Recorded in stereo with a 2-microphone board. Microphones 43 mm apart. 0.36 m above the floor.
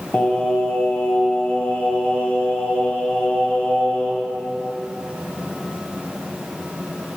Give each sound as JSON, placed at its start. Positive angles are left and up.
{"t": 0.1, "sound": "singing", "side_deg": 35, "distance_m": 0.9}